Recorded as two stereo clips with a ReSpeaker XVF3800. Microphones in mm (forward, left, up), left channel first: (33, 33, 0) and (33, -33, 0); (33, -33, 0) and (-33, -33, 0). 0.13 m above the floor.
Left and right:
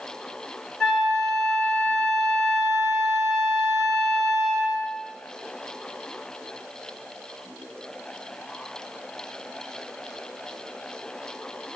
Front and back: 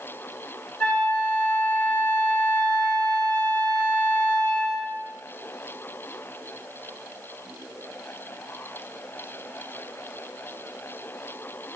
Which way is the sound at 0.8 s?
20° left.